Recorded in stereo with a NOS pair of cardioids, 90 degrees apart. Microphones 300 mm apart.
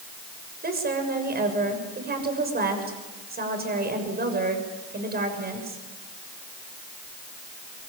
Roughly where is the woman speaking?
Ahead right.